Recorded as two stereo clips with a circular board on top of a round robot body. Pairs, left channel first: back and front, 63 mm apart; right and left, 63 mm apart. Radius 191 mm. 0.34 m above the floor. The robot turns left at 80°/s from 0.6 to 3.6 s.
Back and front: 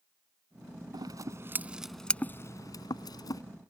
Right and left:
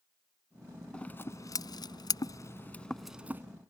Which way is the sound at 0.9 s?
15° right.